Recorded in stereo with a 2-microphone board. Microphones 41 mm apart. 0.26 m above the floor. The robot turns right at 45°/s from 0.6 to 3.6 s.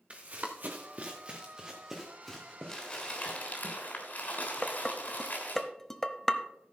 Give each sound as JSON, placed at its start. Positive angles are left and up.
{"t": 0.1, "sound": "running footsteps", "side_deg": -35, "distance_m": 1.4}
{"t": 2.7, "sound": "crumpling", "azimuth_deg": 15, "distance_m": 3.5}
{"t": 4.6, "sound": "dishes clattering", "side_deg": 10, "distance_m": 0.8}